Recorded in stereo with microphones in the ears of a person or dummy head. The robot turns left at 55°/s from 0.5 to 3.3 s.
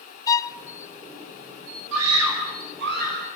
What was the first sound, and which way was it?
A violin, 15° left (ahead or behind).